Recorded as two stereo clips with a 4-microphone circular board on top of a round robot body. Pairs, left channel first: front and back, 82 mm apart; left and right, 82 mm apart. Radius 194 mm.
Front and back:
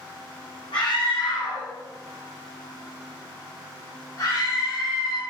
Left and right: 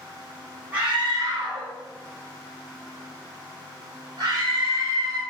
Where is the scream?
20° right, 3 m; by 5.2 s 40° right, 5.5 m.